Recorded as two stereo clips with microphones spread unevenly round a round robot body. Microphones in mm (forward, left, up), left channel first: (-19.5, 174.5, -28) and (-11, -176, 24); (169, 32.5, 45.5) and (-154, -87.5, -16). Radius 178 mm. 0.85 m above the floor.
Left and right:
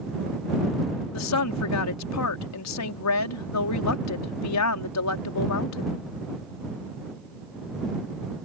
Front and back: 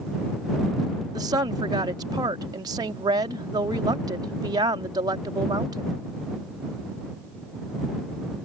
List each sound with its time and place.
1.1 s a woman speaking: 125° left